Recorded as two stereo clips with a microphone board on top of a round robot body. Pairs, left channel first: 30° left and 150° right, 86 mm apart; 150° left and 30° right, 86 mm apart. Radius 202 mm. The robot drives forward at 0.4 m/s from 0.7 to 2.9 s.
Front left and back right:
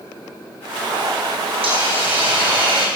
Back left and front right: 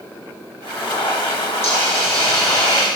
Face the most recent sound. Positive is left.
turn(degrees=-150)